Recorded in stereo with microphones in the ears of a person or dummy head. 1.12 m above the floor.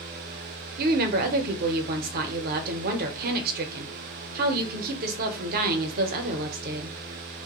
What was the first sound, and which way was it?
A woman speaking, 50° right (ahead or behind).